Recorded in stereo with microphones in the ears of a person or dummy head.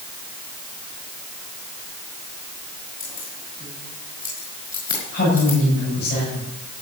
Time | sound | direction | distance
3.0 | keys jangling | 25° left (ahead or behind) | 5 m
5.1 | a woman speaking | 60° left (ahead or behind) | 8 m